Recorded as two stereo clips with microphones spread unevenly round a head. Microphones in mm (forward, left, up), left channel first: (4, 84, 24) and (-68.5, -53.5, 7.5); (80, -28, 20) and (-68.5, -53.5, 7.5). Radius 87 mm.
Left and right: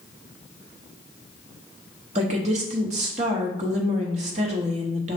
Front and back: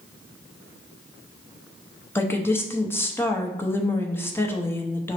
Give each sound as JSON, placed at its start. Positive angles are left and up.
{"t": 2.1, "sound": "a woman speaking", "azimuth_deg": -65, "distance_m": 0.8}